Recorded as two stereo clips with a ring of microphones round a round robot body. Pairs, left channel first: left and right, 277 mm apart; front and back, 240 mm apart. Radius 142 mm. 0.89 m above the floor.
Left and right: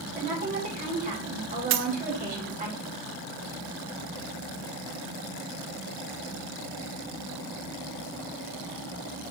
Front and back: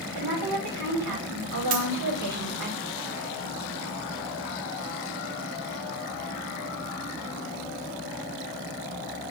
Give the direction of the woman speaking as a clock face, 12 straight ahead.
5 o'clock.